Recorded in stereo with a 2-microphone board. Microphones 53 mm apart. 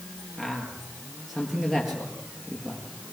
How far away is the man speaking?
About 5 m.